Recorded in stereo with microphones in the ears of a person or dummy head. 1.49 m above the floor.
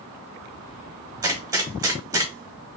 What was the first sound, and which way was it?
A gunshot, 15° right (ahead or behind).